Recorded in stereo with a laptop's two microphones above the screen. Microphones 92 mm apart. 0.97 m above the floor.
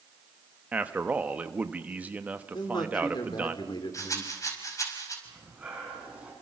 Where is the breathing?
15° right (ahead or behind), 5 m.